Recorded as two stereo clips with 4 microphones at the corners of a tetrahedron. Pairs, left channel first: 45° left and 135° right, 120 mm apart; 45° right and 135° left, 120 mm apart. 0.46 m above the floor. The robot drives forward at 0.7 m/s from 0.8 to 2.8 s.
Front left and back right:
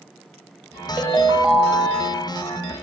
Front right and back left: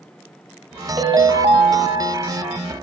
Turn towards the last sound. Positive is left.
turn(degrees=175)